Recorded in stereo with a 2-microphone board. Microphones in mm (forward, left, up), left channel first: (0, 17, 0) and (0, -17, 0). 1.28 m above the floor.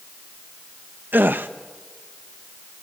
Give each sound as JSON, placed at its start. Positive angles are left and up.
{"t": 1.1, "sound": "a gasp", "side_deg": -80, "distance_m": 1.0}